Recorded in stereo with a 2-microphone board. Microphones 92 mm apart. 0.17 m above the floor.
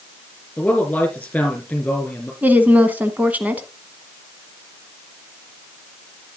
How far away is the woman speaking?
About 1.1 m.